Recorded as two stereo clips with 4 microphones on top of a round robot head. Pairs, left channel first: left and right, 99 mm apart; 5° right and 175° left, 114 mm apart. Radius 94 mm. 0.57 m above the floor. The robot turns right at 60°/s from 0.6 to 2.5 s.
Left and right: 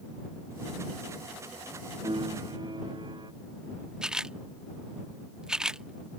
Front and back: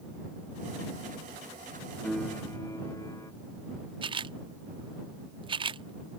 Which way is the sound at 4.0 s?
170° right.